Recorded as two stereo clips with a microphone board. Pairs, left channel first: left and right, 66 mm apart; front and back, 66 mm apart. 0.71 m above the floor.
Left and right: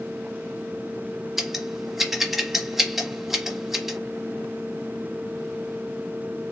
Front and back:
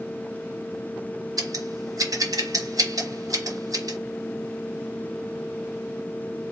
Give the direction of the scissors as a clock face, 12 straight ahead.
6 o'clock.